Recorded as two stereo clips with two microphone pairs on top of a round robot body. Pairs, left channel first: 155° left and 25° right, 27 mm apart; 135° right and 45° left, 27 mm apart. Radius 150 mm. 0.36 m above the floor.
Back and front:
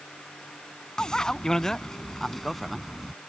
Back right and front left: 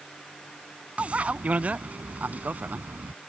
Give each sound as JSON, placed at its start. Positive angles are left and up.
{"t": 1.0, "sound": "a bicycle bell", "azimuth_deg": 95}